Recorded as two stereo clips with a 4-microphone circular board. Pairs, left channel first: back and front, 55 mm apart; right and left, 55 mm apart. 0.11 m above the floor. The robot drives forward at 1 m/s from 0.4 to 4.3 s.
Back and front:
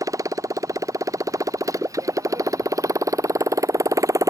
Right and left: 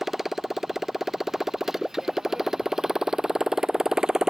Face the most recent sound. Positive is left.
turn(degrees=10)